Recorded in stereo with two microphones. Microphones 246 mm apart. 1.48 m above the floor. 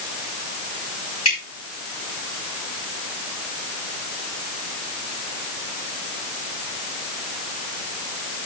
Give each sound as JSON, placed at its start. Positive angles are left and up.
{"t": 1.2, "sound": "dripping", "side_deg": 85, "distance_m": 6.5}